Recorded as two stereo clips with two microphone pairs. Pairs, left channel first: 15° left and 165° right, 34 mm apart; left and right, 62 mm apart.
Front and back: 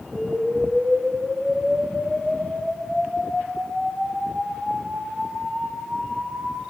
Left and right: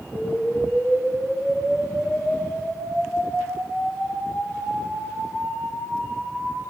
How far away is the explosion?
About 5 m.